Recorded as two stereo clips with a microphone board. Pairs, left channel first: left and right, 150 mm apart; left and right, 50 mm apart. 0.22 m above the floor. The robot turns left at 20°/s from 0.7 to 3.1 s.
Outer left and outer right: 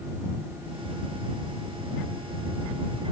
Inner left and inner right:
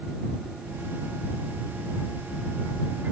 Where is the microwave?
I don't hear a microwave.